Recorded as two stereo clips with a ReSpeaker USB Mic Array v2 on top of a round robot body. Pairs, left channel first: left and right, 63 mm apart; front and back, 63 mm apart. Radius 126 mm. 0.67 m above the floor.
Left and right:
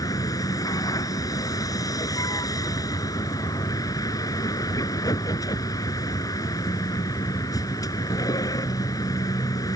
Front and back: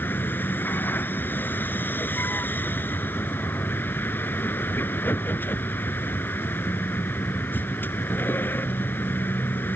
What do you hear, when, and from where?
0.0 s a vehicle: 60° left